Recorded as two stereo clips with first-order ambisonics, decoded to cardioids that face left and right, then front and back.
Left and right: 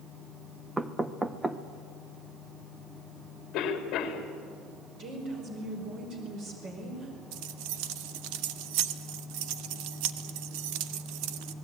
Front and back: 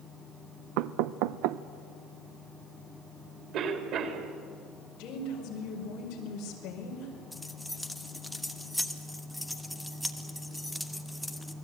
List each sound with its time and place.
0.8 s knocking: 170° right, 0.8 m
3.5 s a cough: 135° left, 3.5 m
5.0 s a woman speaking: 40° right, 5 m
7.3 s keys jangling: 90° right, 1.2 m